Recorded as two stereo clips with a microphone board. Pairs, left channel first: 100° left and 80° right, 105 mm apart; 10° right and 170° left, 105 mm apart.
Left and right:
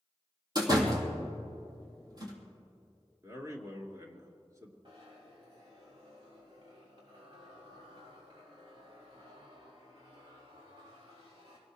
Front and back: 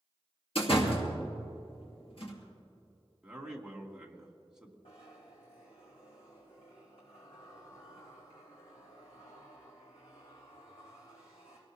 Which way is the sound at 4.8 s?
35° right.